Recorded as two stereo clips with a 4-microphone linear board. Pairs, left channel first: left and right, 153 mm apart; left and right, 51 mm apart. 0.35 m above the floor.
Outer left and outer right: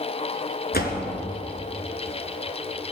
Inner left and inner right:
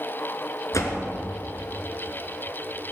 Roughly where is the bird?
No bird in this recording.